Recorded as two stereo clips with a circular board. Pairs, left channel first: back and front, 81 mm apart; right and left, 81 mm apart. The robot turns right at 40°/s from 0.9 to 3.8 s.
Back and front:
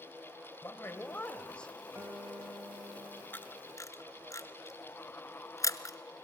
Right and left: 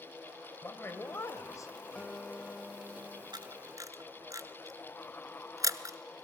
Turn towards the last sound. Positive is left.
turn(degrees=135)